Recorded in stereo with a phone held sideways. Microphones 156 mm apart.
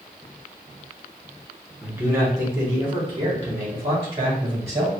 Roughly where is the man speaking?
Centre.